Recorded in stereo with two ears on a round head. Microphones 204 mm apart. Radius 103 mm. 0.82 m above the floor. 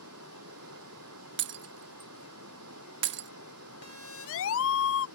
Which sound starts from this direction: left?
A siren, at 3.8 s.